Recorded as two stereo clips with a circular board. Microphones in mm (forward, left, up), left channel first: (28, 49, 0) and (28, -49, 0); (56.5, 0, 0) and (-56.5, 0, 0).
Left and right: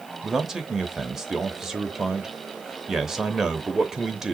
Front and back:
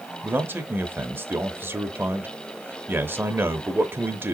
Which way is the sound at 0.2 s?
165° right.